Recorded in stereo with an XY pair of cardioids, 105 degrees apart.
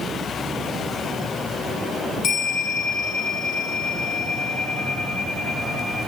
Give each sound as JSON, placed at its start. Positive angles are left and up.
{"t": 2.2, "sound": "a bell", "azimuth_deg": 60, "distance_m": 3.0}